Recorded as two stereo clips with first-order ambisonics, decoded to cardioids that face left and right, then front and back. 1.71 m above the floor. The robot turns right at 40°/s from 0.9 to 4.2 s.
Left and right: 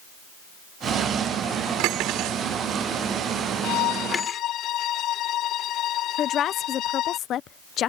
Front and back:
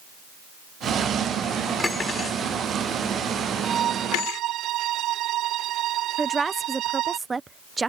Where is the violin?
115° left; by 7.2 s 135° left.